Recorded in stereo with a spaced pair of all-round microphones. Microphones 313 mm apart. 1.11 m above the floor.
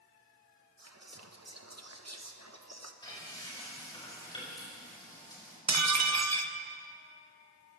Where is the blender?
I don't hear a blender.